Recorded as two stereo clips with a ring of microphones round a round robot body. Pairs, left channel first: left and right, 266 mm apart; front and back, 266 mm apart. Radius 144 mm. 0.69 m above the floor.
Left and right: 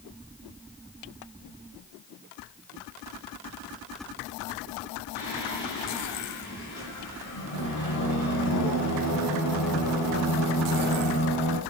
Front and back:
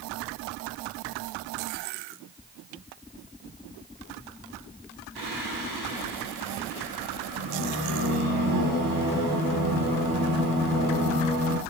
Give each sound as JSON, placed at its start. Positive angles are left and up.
{"t": 5.2, "sound": "singing", "azimuth_deg": 125, "distance_m": 5.5}